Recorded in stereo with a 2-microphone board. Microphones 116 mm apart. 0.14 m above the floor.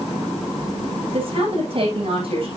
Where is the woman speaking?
50° right (ahead or behind), 9 m.